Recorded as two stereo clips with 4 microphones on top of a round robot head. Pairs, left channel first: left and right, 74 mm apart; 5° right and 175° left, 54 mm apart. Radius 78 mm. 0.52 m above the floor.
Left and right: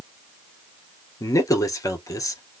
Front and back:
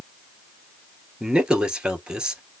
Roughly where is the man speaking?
Left.